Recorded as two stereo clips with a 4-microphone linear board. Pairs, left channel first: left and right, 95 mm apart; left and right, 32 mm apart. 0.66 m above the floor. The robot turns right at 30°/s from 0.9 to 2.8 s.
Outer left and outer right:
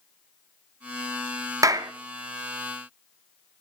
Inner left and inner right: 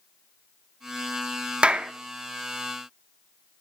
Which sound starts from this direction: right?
A clap, at 1.6 s.